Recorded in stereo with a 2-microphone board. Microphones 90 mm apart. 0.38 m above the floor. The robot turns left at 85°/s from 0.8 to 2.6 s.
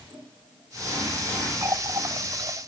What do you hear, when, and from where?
1.6 s a running tap: 25° right (ahead or behind), 1.3 m; by 2.7 s 50° right (ahead or behind), 1.3 m